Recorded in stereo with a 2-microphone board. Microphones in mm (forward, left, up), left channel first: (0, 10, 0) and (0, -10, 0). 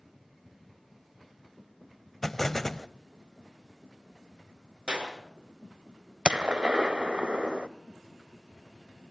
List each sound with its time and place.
2.2 s an explosion: 20° left (ahead or behind), 0.7 m
4.9 s a clap: 60° right (ahead or behind), 6.5 m
6.2 s a gunshot: 55° right (ahead or behind), 1.0 m